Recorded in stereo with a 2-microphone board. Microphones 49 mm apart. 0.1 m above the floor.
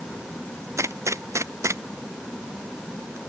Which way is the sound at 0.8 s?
85° right.